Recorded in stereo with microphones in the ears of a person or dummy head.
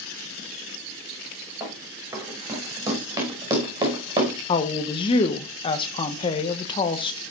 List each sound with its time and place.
1.6 s running footsteps: 15° right (ahead or behind), 7 m; by 4.3 s 25° right (ahead or behind), 5 m
4.5 s a woman speaking: 30° left (ahead or behind), 1.1 m